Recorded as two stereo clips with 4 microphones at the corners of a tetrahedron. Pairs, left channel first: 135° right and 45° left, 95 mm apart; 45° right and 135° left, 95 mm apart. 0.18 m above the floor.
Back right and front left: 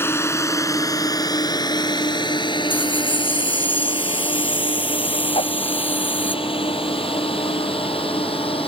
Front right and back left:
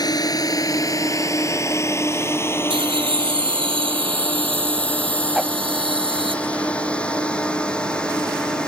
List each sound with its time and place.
0.0 s a drone: 75° right; by 8.7 s 125° right
2.7 s laughter: 155° left
5.3 s a whoosh: 140° right